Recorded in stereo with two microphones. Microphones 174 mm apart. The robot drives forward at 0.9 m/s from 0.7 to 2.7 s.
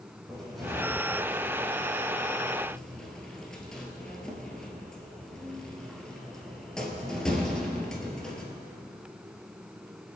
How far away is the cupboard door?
About 3.5 m.